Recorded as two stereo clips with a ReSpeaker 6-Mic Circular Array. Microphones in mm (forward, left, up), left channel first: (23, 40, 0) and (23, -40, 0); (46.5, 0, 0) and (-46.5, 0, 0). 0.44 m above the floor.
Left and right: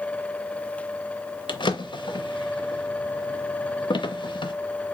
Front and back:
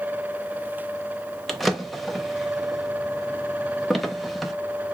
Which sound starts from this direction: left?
A drawer, at 1.5 s.